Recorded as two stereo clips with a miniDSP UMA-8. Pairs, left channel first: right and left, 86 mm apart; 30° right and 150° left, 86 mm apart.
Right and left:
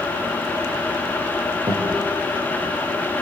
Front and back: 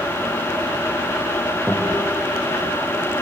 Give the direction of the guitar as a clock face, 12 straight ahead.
10 o'clock.